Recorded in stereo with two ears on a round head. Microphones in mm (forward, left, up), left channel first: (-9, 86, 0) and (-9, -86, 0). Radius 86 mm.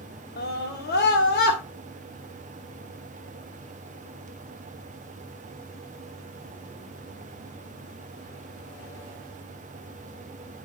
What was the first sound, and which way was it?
A scream, 55° left (ahead or behind).